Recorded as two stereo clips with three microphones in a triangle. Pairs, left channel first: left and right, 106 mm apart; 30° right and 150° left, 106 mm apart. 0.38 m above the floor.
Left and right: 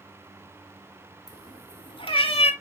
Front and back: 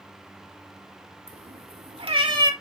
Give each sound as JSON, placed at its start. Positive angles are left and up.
{"t": 1.3, "sound": "a cat meowing", "azimuth_deg": 140, "distance_m": 2.5}